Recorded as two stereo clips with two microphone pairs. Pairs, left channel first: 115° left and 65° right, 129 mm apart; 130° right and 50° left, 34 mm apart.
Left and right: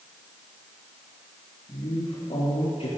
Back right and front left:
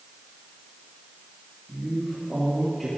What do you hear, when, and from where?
1.7 s a man speaking: 145° left, 3.5 m